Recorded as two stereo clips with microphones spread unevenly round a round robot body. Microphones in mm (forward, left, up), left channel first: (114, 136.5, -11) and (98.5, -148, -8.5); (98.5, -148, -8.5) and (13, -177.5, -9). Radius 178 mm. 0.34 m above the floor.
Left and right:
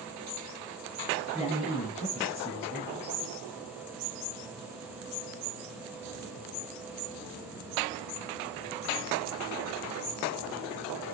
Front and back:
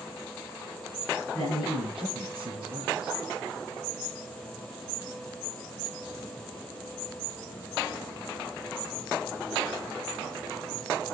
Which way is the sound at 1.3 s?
155° left.